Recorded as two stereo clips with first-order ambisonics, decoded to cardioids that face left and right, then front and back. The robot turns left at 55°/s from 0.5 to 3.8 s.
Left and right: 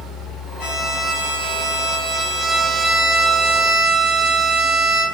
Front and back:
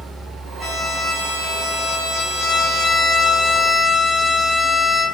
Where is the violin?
105° left, 0.7 m; by 5.0 s 70° right, 0.7 m.